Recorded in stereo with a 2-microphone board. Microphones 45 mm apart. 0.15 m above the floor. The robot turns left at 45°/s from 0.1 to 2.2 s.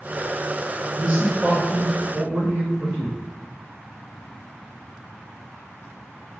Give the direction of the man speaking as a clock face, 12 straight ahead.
1 o'clock.